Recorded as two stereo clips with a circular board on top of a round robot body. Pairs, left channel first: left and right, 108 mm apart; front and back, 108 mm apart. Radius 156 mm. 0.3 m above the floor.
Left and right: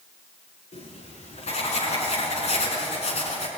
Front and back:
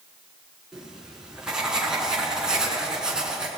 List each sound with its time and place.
0.7 s writing: 95° left, 6 m